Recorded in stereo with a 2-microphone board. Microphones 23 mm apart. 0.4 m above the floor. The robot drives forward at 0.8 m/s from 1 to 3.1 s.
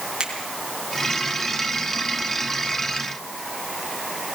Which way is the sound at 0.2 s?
35° right (ahead or behind).